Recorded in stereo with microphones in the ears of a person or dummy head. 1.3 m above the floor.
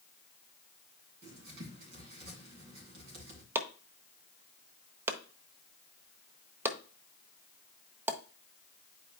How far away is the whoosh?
No whoosh in this recording.